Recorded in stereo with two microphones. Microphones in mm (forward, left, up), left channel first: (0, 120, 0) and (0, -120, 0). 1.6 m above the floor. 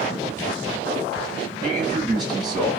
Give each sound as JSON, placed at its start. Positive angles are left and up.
{"t": 1.6, "sound": "a man speaking", "side_deg": 0, "distance_m": 2.0}